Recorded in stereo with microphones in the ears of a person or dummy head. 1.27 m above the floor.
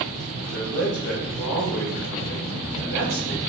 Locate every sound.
0.4 s a man speaking: 80° left, 1.2 m